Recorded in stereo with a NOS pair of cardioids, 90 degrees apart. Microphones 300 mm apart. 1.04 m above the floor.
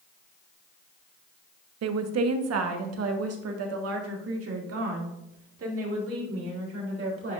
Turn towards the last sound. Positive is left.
turn(degrees=-45)